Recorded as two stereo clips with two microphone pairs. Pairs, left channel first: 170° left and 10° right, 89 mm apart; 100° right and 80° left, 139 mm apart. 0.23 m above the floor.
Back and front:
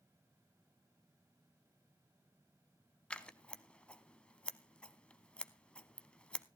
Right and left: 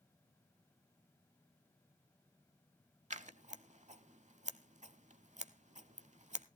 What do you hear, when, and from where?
3.1 s scissors: 95° left, 0.6 m